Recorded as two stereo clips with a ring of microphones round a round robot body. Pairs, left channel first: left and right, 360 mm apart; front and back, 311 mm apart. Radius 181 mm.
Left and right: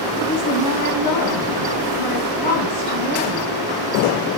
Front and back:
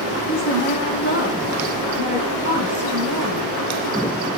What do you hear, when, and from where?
0.3 s a woman speaking: 55° left, 4 m; by 3.5 s 65° left, 5.5 m